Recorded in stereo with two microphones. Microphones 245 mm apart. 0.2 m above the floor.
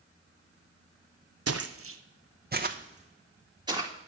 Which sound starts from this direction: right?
Footsteps, at 1.5 s.